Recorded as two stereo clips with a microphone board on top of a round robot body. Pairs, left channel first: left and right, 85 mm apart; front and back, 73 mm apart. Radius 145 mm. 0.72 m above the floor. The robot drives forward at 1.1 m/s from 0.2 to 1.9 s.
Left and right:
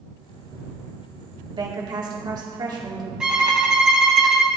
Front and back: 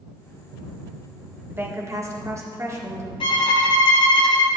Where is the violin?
10° right, 1.1 m.